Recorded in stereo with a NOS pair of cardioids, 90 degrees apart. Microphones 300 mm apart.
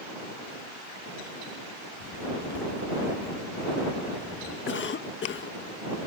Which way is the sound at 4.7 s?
45° left.